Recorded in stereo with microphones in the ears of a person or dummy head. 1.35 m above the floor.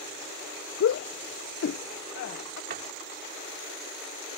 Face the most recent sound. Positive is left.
turn(degrees=-60)  # may be behind; listen again after turning